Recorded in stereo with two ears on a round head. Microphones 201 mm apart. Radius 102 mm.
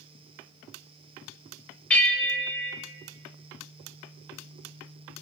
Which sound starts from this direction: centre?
A bell, at 1.9 s.